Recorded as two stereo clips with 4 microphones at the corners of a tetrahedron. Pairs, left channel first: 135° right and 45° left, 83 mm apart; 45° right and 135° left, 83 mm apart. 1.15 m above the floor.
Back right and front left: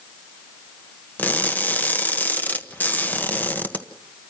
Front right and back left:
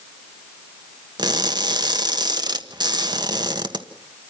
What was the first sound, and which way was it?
Crushing, 155° left.